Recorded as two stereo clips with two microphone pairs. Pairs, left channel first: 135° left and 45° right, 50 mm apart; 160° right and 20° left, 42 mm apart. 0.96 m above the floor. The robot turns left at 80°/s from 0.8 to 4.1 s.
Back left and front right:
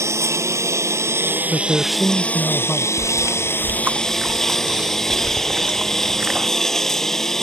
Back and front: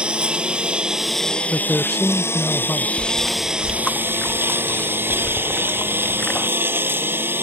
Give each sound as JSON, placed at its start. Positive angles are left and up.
{"t": 0.0, "sound": "a lawn mower", "azimuth_deg": -45}
{"t": 1.5, "sound": "a man speaking", "azimuth_deg": -110}
{"t": 3.0, "sound": "chewing", "azimuth_deg": -25}